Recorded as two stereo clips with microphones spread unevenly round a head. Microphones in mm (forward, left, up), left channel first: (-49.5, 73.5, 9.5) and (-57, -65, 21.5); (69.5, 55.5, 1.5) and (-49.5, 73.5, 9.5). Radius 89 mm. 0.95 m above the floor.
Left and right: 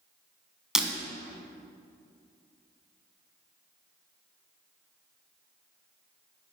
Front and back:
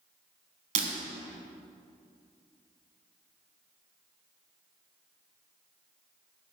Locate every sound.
0.8 s breaking glass: 175° right, 1.5 m